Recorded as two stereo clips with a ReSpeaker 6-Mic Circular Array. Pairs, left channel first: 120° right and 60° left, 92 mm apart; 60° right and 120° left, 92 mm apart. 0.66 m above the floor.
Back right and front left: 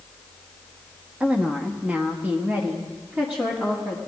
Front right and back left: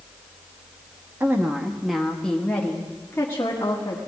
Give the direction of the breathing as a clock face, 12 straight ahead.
I don't hear breathing.